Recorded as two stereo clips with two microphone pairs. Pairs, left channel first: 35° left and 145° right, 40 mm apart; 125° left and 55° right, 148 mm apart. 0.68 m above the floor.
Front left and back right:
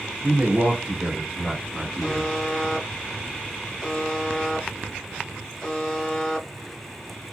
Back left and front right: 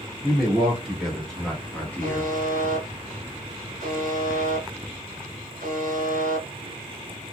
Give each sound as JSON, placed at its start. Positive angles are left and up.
{"t": 0.2, "sound": "a man speaking", "azimuth_deg": -130, "distance_m": 1.4}
{"t": 2.0, "sound": "a buzzer", "azimuth_deg": -50, "distance_m": 1.4}